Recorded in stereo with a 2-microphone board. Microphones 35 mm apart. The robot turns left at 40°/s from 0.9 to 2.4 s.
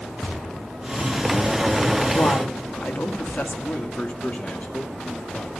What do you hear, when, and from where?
2.1 s a woman speaking: 50° left (ahead or behind), 1.8 m; by 3.5 s 60° left (ahead or behind), 1.8 m
3.6 s a man speaking: 40° left (ahead or behind), 2.5 m